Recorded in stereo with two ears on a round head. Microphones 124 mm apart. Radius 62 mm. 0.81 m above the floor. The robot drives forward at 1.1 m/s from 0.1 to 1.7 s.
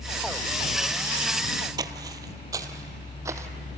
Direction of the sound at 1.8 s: 30° right (ahead or behind).